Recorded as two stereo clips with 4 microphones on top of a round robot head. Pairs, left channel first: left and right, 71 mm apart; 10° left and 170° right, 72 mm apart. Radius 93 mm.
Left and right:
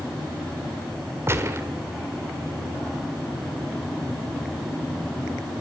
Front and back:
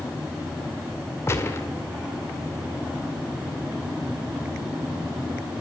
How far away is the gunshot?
About 1.8 m.